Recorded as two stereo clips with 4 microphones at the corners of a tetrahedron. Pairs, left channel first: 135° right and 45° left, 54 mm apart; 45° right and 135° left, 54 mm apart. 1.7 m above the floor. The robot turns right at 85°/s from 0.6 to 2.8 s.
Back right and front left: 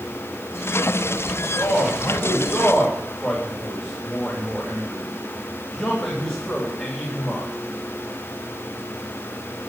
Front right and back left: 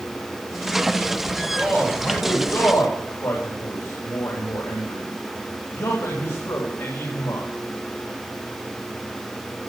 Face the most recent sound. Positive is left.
turn(degrees=-50)